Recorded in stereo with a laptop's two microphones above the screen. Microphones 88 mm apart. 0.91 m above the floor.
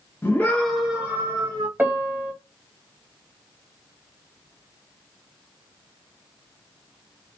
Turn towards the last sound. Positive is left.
turn(degrees=-20)  # may be behind; listen again after turning